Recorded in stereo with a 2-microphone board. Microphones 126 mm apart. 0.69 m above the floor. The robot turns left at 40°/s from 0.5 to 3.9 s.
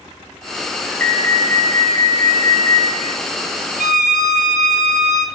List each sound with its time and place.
1.0 s an alarm: 150° left, 1.1 m; by 2.9 s 75° left, 1.1 m
3.8 s a violin: 85° right, 0.7 m; by 5.3 s 80° right, 0.7 m